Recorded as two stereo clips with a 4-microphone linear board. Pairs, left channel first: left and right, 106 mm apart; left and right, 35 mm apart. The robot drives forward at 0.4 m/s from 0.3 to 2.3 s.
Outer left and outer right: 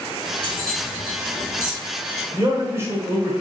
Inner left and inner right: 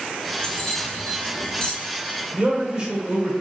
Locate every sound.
0.4 s keys jangling: 20° left (ahead or behind), 1.7 m; by 1.7 s 25° left (ahead or behind), 1.3 m
2.3 s a man speaking: 25° right (ahead or behind), 1.1 m